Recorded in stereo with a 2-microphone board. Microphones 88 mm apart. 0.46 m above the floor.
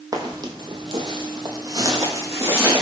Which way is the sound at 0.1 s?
45° right (ahead or behind).